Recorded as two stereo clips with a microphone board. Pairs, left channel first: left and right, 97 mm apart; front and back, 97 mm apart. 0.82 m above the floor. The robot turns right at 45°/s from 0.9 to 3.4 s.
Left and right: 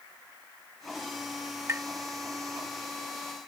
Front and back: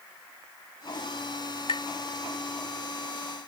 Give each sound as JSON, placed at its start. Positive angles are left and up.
{"t": 1.7, "sound": "tapping", "azimuth_deg": -25}